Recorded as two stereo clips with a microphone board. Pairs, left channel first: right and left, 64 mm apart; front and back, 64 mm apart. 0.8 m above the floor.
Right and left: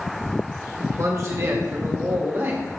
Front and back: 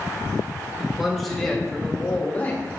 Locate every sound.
0.8 s a man speaking: 100° left, 1.5 m; by 2.6 s 55° left, 1.8 m